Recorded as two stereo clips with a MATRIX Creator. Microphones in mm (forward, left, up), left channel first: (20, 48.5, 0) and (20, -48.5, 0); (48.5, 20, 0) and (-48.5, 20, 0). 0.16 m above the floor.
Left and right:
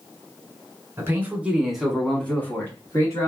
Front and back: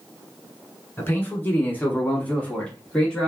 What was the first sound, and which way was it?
A man speaking, 50° right.